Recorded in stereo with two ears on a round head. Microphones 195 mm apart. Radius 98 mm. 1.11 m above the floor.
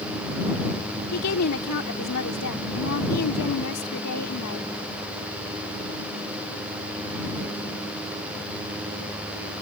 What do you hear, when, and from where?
1.1 s a woman speaking: 85° left